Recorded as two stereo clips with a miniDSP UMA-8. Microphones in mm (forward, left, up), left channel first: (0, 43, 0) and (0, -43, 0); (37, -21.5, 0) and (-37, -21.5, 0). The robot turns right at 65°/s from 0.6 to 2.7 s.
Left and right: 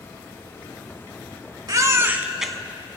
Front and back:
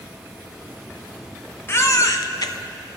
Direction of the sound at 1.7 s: 55° right.